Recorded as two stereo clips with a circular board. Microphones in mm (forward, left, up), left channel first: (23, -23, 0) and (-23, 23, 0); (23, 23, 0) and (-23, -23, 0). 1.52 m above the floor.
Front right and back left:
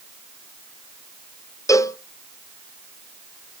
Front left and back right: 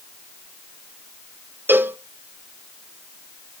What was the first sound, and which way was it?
A cowbell, 75° right.